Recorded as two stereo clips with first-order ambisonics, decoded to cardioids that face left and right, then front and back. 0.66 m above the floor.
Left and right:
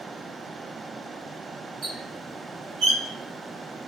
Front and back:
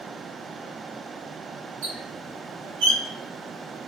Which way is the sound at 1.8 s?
155° right.